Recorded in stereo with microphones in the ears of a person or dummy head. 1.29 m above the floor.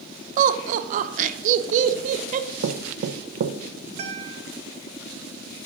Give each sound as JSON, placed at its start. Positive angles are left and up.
{"t": 0.4, "sound": "laughter", "side_deg": -45, "distance_m": 0.8}
{"t": 2.6, "sound": "knocking", "side_deg": -55, "distance_m": 0.7}
{"t": 4.0, "sound": "a guitar", "side_deg": -40, "distance_m": 1.2}